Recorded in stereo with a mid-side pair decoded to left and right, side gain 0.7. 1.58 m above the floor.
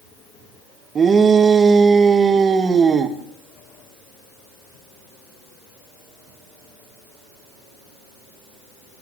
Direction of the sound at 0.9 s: 30° right.